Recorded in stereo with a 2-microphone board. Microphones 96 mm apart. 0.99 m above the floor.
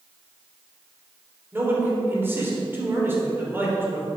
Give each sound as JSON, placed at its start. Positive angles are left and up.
{"t": 1.5, "sound": "a man speaking", "side_deg": -25, "distance_m": 3.0}